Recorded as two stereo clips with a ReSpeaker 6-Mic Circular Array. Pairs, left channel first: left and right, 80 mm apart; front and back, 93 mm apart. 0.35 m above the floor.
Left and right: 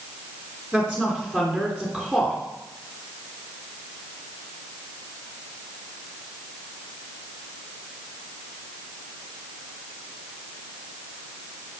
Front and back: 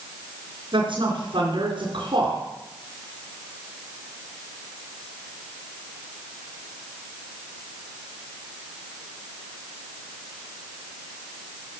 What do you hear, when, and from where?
0.7 s a woman speaking: 170° left, 3.5 m